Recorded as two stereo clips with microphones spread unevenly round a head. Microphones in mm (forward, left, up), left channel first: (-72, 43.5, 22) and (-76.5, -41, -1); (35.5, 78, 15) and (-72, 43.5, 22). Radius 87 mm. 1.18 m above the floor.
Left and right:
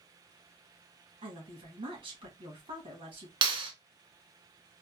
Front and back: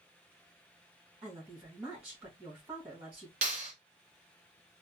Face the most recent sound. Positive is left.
turn(degrees=-105)